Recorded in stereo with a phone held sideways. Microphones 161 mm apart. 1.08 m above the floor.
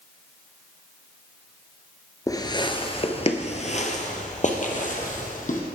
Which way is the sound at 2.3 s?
20° left (ahead or behind).